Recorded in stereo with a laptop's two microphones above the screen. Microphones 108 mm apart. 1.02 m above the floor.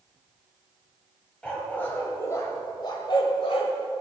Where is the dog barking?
10° left (ahead or behind), 2 m; by 3.8 s 65° left (ahead or behind), 1.7 m.